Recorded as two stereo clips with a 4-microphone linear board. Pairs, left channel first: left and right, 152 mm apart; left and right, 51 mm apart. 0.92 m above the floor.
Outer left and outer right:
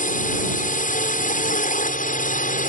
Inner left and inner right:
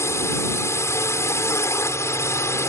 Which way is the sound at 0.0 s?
65° left (ahead or behind).